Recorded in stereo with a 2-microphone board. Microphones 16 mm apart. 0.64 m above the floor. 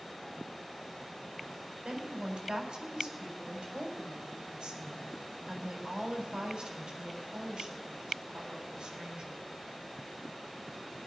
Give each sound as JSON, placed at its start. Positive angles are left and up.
{"t": 1.9, "sound": "a woman speaking", "side_deg": -65, "distance_m": 4.0}